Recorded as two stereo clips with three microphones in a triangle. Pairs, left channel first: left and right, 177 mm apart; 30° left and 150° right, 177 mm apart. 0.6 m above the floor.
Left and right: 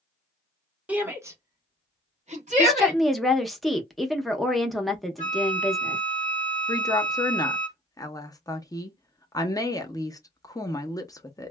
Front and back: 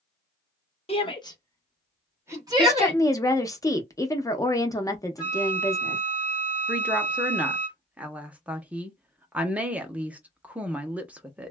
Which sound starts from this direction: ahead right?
A flute, at 5.2 s.